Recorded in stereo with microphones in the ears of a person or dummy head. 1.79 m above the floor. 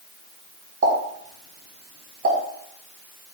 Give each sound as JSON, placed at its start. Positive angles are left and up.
{"t": 0.8, "sound": "a pop", "side_deg": -65, "distance_m": 5.5}